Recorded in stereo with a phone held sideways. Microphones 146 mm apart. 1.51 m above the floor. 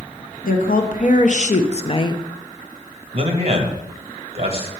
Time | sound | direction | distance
0.4 | a woman speaking | 70° left (ahead or behind) | 1.2 m
3.1 | a man speaking | 45° right (ahead or behind) | 1.6 m